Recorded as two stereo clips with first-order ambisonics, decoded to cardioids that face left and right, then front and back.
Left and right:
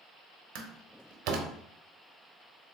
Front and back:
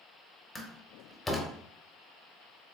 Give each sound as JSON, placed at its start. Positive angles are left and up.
{"t": 0.6, "sound": "a door slam", "azimuth_deg": -80, "distance_m": 0.7}